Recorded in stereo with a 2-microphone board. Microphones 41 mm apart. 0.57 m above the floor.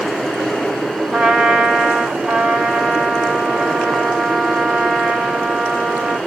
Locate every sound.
1.1 s a trumpet: 5° left (ahead or behind), 2 m